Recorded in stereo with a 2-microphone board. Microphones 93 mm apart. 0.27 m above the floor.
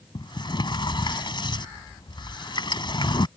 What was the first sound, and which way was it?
A sliding door, 55° left (ahead or behind).